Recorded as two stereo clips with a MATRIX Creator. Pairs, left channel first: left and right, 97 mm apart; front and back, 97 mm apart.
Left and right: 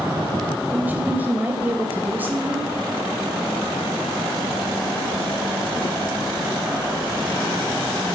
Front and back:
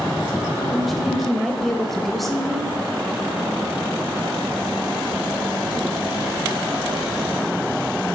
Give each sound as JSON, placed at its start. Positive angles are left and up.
{"t": 0.7, "sound": "a woman speaking", "azimuth_deg": -85, "distance_m": 1.1}